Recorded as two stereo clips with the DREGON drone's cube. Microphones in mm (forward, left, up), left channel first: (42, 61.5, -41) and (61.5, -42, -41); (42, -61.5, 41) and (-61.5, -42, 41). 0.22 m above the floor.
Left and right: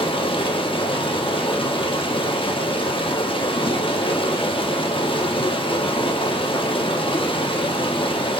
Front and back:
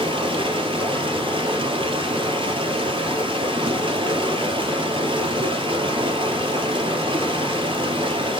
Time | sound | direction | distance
0.0 | running water | 135° left | 1.7 m